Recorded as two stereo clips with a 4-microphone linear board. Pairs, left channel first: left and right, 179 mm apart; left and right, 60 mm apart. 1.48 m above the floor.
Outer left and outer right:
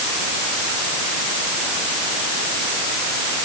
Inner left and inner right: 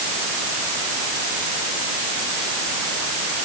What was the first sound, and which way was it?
Only background noise.